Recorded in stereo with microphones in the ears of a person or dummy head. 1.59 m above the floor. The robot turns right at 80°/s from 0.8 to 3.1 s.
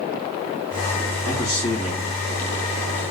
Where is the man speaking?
85° left, 1.9 m; by 3.0 s 45° right (ahead or behind), 1.9 m.